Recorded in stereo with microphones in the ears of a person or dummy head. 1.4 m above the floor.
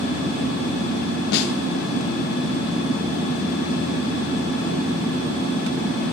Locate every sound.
1.3 s a snare drum: 60° left (ahead or behind), 0.9 m